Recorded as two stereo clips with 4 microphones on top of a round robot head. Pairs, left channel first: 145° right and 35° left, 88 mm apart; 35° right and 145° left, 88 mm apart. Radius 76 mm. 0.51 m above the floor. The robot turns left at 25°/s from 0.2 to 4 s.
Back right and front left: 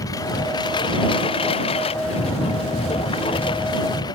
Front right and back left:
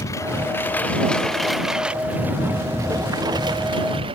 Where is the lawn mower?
95° right; by 4.2 s 170° left.